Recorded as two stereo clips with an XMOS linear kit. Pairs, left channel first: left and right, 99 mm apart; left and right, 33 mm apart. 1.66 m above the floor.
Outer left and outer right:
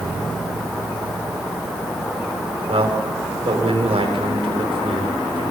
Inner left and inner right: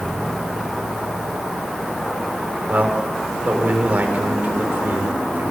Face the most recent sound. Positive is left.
turn(degrees=-80)